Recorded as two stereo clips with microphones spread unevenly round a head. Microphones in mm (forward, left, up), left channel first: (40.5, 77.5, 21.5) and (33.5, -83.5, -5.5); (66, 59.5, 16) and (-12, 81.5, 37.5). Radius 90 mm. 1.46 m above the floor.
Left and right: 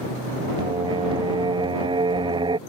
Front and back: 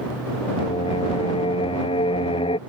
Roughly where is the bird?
I don't hear a bird.